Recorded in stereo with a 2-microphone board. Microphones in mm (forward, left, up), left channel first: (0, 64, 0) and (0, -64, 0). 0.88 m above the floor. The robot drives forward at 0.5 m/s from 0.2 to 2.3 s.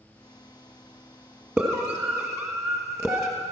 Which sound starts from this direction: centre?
A scream, at 1.6 s.